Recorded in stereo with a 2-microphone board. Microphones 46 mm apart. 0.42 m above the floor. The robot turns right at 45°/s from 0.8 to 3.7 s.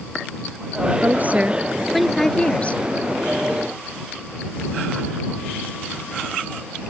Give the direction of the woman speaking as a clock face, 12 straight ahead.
2 o'clock.